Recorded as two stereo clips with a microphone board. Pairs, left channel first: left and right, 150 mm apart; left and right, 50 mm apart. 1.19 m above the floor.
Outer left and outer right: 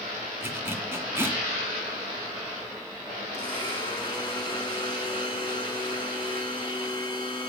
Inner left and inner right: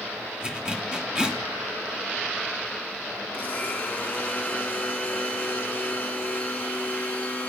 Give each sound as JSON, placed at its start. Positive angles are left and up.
{"t": 0.4, "sound": "a zipper", "side_deg": -15, "distance_m": 1.0}
{"t": 3.3, "sound": "a blender", "side_deg": 30, "distance_m": 2.0}